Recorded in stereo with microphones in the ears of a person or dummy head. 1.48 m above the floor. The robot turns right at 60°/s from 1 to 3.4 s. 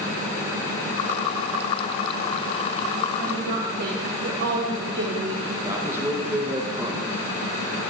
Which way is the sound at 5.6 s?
5° right (ahead or behind).